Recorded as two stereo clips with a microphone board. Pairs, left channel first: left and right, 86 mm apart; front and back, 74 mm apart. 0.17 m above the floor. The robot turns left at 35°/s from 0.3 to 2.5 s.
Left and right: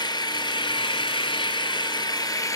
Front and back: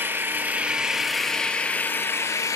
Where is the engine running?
120° left, 0.7 m; by 2.6 s 40° left, 0.7 m.